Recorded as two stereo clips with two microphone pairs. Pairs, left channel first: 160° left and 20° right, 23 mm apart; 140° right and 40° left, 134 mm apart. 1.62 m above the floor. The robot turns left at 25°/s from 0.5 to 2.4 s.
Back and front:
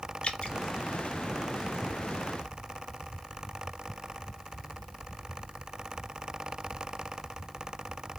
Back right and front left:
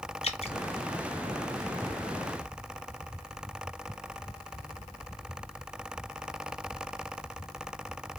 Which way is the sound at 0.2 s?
170° right.